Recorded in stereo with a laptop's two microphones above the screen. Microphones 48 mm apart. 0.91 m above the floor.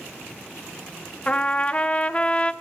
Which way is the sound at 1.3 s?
25° left (ahead or behind).